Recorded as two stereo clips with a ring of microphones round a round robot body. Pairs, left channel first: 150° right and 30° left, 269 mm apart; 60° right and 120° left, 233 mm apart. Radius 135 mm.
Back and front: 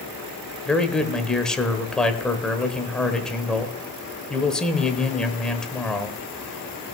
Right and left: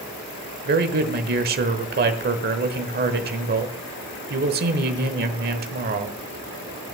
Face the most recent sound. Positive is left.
turn(degrees=125)